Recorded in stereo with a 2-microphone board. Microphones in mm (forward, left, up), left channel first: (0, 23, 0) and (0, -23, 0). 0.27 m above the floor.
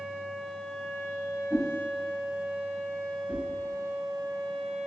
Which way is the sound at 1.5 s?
35° right (ahead or behind).